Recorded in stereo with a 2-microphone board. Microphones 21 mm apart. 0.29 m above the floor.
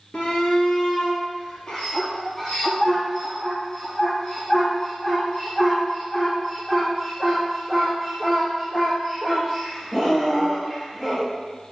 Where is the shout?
55° left (ahead or behind), 5.5 m; by 11.3 s 20° left (ahead or behind), 15.5 m.